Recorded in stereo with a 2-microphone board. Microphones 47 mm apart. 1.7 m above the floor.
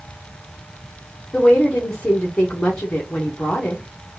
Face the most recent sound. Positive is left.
turn(degrees=20)  # may be behind; listen again after turning